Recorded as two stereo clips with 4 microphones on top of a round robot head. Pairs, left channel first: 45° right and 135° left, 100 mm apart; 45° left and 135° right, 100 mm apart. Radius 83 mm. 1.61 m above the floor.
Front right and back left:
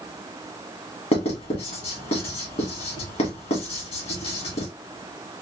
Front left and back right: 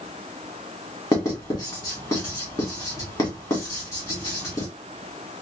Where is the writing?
15° right, 1.9 m.